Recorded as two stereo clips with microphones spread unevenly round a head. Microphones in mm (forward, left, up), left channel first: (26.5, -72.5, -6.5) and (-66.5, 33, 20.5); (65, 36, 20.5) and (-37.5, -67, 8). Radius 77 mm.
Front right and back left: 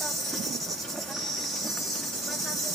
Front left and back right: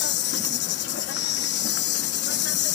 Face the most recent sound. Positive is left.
turn(degrees=40)